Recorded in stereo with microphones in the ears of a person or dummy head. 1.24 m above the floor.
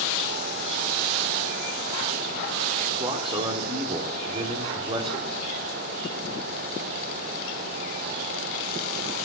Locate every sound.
3.0 s a man speaking: 40° right (ahead or behind), 3.5 m